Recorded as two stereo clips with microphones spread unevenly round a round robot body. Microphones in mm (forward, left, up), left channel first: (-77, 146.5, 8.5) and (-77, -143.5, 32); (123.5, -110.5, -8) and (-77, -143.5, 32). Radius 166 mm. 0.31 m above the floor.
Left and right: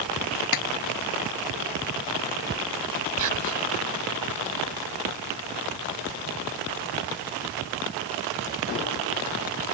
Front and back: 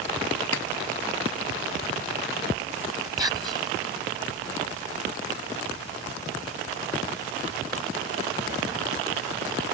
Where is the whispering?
95° right.